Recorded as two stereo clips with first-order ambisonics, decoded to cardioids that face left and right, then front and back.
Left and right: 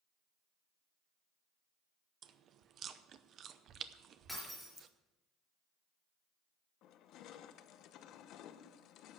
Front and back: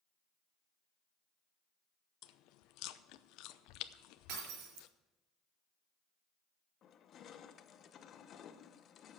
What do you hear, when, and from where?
2.2 s chewing: 35° right, 0.6 m
4.3 s breaking glass: straight behind, 5 m
6.8 s crushing: 55° left, 0.7 m